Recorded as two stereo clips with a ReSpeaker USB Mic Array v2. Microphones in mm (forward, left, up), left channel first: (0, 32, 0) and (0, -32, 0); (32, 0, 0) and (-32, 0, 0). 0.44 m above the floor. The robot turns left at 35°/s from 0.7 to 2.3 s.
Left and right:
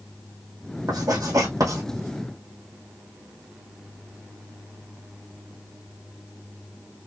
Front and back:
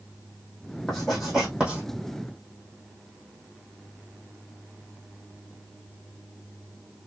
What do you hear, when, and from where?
0.9 s writing: 80° right, 3 m; by 1.8 s 110° right, 3 m